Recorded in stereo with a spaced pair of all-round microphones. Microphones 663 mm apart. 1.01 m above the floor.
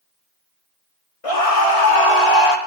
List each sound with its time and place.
1.2 s a scream: 55° left (ahead or behind), 2 m; by 2.6 s 75° left (ahead or behind), 2.5 m